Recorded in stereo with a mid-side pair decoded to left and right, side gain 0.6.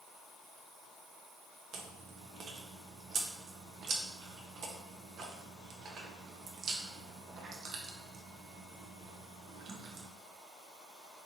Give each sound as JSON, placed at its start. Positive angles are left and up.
{"t": 1.7, "sound": "chewing", "azimuth_deg": -50, "distance_m": 0.6}